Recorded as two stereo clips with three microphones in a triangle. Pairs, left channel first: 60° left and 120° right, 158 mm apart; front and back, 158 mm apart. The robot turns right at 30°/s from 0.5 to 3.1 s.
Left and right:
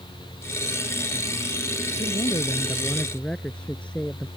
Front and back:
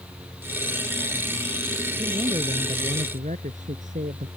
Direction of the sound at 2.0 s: 110° left.